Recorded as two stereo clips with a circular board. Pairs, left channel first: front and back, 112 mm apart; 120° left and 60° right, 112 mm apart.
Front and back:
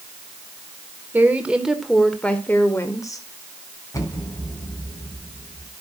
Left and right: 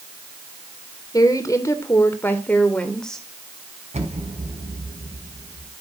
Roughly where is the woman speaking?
Behind left.